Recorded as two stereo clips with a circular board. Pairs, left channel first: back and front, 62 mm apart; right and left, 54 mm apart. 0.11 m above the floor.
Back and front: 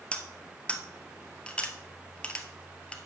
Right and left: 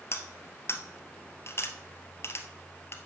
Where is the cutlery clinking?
110° right, 1.4 m.